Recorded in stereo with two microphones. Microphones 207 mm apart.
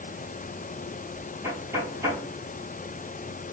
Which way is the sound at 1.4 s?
15° right (ahead or behind).